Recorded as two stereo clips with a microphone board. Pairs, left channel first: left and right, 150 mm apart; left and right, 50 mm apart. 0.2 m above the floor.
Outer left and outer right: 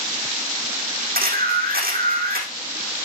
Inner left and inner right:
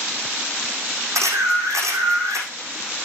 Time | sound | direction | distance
1.1 | a camera shutter | 85° right | 4.5 m